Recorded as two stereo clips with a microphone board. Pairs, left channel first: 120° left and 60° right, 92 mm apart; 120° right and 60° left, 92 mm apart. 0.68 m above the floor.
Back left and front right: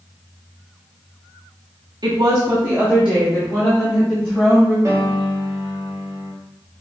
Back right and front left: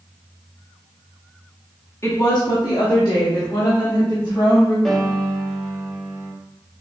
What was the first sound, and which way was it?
A woman speaking, 70° right.